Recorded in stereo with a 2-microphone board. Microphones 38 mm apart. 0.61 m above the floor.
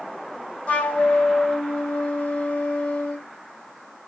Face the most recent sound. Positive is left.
turn(degrees=40)  # may be behind; listen again after turning